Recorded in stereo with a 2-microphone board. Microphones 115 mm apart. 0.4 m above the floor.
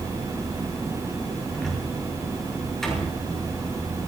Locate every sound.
1.5 s a cupboard door: 5° left (ahead or behind), 6.5 m